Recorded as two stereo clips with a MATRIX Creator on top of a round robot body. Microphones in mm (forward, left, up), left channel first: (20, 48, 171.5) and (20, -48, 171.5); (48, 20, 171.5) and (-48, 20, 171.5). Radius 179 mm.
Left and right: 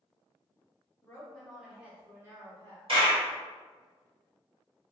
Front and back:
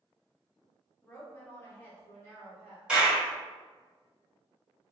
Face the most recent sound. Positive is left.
turn(degrees=-100)